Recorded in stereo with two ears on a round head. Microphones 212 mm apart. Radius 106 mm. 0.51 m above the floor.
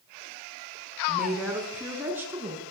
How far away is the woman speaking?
About 6 m.